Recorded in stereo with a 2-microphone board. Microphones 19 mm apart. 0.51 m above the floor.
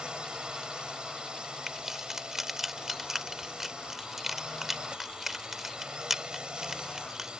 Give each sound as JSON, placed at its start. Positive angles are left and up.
{"t": 0.0, "sound": "a drone", "side_deg": -50}
{"t": 1.7, "sound": "keys jangling", "side_deg": -15}